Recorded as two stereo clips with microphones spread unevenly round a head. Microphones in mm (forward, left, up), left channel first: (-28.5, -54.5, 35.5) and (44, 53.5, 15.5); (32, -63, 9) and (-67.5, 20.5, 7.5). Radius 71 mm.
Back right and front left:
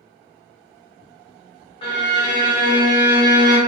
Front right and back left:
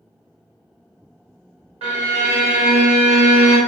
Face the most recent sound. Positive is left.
turn(degrees=180)